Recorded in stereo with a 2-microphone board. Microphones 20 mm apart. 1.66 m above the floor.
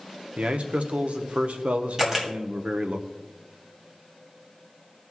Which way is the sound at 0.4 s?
75° right (ahead or behind).